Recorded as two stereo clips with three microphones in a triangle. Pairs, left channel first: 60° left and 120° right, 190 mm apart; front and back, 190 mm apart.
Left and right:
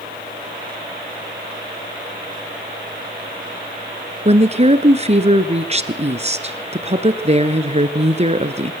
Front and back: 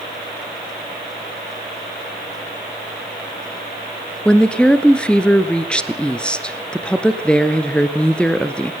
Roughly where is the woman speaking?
Right.